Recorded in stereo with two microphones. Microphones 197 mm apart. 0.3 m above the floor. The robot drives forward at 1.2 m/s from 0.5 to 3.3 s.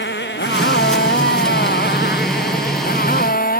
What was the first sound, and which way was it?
A motorcycle, 65° left (ahead or behind).